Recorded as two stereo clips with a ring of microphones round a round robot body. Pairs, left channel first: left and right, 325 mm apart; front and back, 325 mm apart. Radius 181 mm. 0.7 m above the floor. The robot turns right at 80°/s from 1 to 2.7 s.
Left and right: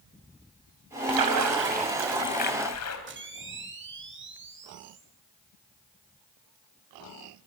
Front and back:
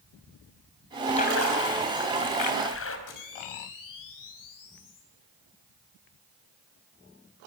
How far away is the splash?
About 3.5 m.